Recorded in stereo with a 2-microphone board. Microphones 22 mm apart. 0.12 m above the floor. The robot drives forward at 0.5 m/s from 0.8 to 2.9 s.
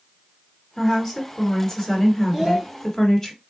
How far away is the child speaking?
About 2.5 m.